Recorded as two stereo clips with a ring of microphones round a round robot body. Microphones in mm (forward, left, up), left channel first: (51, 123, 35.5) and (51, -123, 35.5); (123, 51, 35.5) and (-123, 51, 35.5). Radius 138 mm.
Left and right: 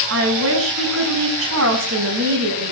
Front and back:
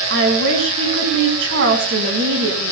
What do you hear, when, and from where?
0.1 s a woman speaking: 130° right, 5.5 m